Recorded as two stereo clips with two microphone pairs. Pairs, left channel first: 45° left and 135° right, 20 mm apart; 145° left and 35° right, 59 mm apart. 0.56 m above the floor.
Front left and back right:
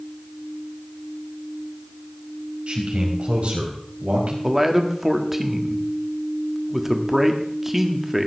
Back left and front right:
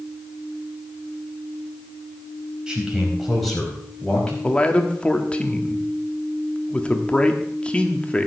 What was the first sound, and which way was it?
A man speaking, 115° right.